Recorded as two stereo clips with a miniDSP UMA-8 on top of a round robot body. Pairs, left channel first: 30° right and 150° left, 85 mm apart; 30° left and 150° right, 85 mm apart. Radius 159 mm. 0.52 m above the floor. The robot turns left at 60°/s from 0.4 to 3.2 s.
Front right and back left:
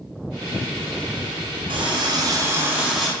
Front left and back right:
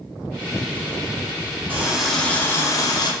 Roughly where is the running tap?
Behind left.